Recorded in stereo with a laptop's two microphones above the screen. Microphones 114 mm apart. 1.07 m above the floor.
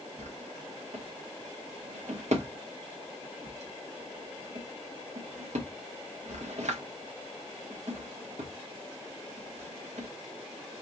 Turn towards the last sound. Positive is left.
turn(degrees=-80)